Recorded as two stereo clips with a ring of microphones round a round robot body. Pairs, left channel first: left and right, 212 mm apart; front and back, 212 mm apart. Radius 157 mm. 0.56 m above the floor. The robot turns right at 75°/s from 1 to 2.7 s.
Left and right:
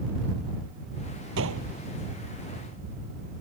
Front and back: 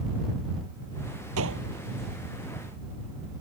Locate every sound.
1.4 s a gunshot: 140° right; by 1.7 s 115° right